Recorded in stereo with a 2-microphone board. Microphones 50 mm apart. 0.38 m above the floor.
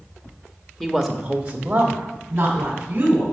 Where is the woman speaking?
5° left (ahead or behind), 0.9 m; by 3.2 s 30° right (ahead or behind), 3 m.